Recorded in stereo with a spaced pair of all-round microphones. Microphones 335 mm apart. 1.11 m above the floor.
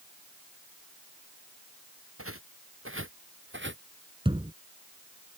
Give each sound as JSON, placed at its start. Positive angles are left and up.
{"t": 2.2, "sound": "footsteps", "side_deg": -45}
{"t": 4.2, "sound": "a thud", "side_deg": -15}